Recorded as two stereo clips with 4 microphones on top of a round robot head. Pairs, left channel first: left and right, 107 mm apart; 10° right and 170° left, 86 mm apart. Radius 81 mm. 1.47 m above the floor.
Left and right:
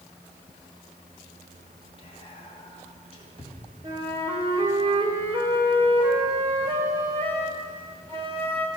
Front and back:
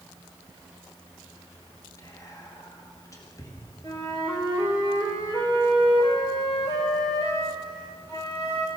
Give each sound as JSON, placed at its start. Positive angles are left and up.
{"t": 2.0, "sound": "whispering", "azimuth_deg": 40, "distance_m": 1.4}
{"t": 3.8, "sound": "a flute", "azimuth_deg": -55, "distance_m": 1.0}